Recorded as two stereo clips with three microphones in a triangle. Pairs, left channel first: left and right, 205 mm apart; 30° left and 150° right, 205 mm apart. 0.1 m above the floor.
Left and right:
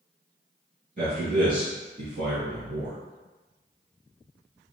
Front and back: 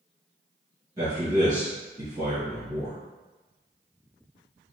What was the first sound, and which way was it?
A man speaking, 90° right.